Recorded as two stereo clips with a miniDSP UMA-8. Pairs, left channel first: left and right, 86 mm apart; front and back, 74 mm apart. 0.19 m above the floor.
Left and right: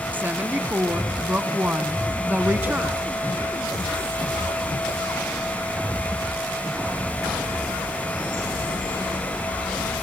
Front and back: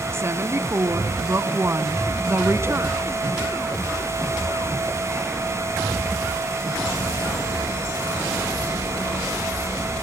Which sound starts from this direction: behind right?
A woman speaking, at 0.1 s.